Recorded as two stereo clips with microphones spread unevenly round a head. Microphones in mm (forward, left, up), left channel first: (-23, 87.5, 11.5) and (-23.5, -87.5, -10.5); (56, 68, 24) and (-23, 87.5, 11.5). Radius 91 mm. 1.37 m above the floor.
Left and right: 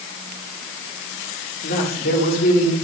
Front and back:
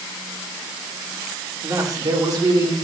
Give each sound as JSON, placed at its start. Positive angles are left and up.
{"t": 1.6, "sound": "a man speaking", "azimuth_deg": 120, "distance_m": 3.5}